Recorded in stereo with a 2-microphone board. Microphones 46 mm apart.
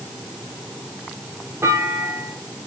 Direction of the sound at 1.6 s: 80° right.